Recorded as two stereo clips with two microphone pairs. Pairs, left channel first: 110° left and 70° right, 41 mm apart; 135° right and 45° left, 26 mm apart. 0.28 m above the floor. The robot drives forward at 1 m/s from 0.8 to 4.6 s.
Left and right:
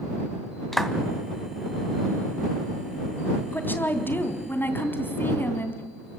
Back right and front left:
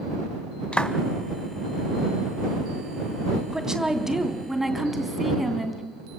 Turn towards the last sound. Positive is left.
turn(degrees=130)